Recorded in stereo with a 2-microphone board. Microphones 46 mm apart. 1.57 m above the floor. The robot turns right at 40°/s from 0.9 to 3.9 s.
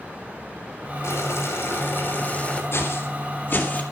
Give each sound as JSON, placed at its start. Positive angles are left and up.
{"t": 1.0, "sound": "boiling", "azimuth_deg": 90, "distance_m": 3.5}
{"t": 2.7, "sound": "footsteps", "side_deg": 60, "distance_m": 3.5}